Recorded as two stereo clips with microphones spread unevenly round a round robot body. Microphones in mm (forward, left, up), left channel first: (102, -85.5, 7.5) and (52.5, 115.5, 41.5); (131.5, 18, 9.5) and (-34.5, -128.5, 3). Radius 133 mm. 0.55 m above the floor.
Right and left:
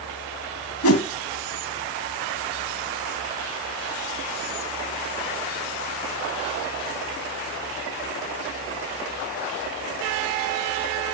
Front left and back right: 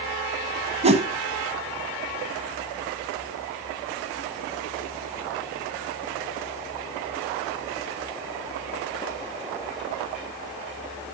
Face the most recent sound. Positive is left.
turn(degrees=-75)